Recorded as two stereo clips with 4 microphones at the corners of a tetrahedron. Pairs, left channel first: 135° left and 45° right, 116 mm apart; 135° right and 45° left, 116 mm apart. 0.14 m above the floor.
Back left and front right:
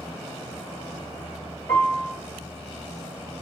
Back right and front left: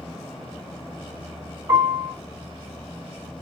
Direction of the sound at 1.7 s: 50° left.